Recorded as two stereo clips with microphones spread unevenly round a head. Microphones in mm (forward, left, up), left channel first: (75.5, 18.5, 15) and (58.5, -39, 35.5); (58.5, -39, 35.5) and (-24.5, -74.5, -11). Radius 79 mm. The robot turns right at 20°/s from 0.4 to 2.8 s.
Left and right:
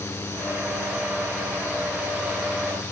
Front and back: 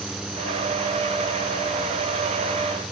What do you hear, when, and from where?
Only background noise.